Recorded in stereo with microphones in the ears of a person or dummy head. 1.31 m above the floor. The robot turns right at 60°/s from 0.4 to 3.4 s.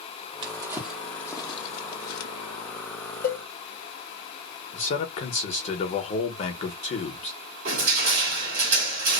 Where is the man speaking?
40° left (ahead or behind), 0.9 m.